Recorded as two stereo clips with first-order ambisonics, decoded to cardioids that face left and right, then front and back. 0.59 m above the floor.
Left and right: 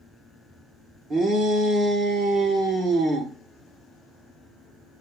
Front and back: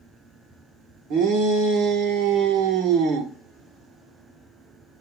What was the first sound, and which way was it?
A shout, 150° right.